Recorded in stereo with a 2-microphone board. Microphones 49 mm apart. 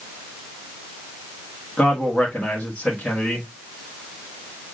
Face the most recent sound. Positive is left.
turn(degrees=25)  # may be behind; listen again after turning